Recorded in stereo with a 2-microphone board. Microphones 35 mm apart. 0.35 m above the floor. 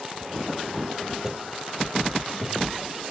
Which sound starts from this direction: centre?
Footsteps, at 1.2 s.